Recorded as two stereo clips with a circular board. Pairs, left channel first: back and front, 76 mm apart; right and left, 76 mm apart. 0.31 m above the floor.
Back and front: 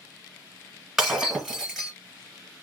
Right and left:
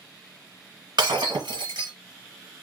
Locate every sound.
1.0 s breaking glass: 85° left, 1.7 m